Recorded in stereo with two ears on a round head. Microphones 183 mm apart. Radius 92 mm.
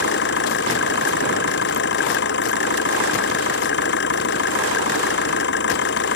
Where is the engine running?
55° left (ahead or behind).